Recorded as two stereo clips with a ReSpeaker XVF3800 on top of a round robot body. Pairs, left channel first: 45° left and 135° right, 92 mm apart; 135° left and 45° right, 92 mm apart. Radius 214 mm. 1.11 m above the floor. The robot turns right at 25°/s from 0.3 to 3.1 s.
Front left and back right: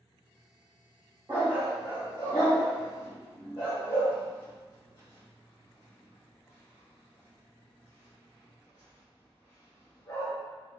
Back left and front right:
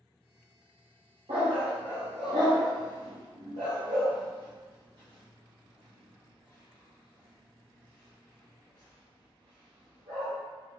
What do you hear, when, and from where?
1.3 s a dog barking: 70° right, 0.6 m; by 10.3 s 25° right, 0.6 m